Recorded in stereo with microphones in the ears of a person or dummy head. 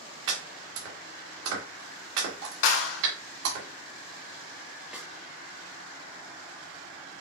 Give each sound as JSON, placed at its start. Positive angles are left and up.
{"t": 0.3, "sound": "chopping", "side_deg": -65, "distance_m": 3.0}
{"t": 2.6, "sound": "a clap", "side_deg": 75, "distance_m": 1.4}
{"t": 4.9, "sound": "a snare drum", "side_deg": 0, "distance_m": 0.9}